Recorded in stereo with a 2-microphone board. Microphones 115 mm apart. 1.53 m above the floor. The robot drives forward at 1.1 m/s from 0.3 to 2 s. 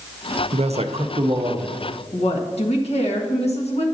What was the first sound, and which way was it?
A man speaking, 65° right (ahead or behind).